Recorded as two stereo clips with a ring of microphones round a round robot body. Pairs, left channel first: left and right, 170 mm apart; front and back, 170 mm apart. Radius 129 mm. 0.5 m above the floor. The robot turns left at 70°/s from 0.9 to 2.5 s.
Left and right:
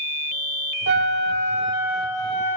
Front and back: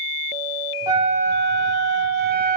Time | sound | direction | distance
0.9 | a flute | 105° right | 2.5 m